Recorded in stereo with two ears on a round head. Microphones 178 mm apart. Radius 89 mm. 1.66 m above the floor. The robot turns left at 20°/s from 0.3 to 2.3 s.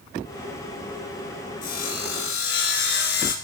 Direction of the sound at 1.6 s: 45° left (ahead or behind).